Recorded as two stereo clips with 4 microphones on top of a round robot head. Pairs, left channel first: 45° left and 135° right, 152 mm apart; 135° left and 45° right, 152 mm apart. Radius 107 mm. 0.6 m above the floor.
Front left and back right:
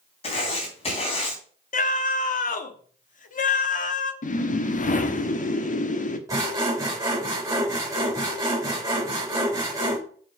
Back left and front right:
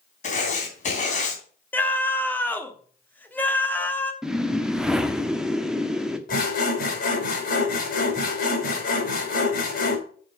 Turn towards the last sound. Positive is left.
turn(degrees=155)